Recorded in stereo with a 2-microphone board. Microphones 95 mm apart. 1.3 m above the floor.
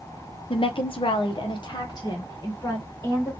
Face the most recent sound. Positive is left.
turn(degrees=35)  # may be behind; listen again after turning